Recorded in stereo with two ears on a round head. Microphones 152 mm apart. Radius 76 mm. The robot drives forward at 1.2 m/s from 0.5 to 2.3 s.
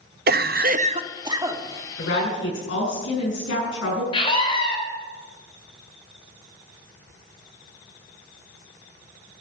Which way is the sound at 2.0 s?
75° left (ahead or behind).